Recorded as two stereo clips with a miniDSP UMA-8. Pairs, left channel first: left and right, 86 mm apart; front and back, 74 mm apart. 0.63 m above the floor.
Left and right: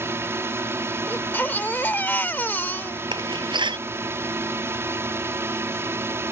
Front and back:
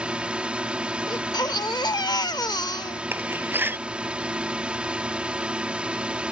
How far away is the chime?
I don't hear a chime.